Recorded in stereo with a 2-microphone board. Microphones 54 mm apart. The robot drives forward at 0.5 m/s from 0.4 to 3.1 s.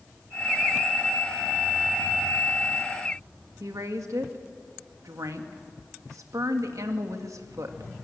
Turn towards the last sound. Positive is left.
turn(degrees=-75)  # may be behind; listen again after turning